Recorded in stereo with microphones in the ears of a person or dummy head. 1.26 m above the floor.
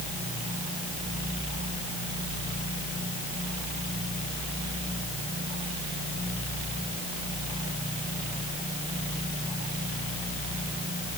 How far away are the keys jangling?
I don't hear keys jangling.